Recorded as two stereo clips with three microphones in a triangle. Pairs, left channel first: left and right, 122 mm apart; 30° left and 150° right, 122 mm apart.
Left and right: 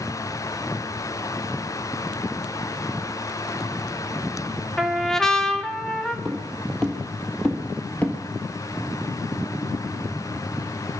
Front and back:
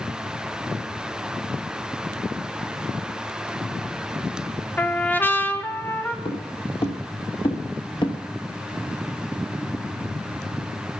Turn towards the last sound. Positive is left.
turn(degrees=25)